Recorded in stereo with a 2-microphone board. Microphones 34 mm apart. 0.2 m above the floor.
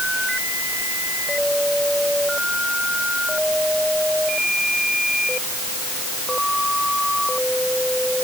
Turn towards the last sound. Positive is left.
No sound to turn to.